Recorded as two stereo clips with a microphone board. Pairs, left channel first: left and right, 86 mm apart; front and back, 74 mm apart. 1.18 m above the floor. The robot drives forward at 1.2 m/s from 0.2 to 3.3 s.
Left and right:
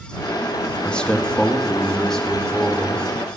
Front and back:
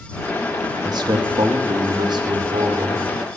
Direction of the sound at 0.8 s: 165° left.